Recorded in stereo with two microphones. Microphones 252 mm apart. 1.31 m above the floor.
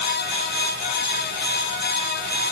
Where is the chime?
No chime in this recording.